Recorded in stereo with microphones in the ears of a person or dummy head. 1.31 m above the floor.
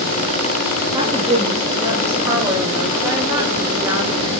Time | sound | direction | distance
0.9 | a woman speaking | 20° right (ahead or behind) | 2.5 m